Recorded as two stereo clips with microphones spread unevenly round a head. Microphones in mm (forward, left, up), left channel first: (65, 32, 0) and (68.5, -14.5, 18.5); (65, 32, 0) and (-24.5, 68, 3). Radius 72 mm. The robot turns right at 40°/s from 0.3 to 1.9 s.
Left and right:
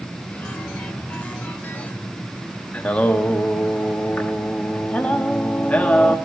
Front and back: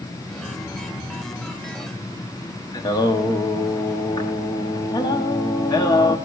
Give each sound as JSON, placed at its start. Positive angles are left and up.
{"t": 2.7, "sound": "singing", "azimuth_deg": 20, "distance_m": 1.3}